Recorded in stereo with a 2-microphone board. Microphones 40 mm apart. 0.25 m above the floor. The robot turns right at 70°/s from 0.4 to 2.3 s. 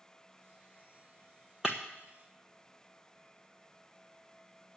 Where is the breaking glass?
10° right (ahead or behind), 1.3 m; by 1.8 s 20° right (ahead or behind), 1.3 m.